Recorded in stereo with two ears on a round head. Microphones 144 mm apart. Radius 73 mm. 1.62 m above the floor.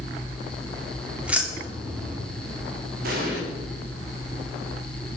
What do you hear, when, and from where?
1.2 s keys jangling: 10° right (ahead or behind), 3 m
3.0 s an explosion: 65° right (ahead or behind), 5.5 m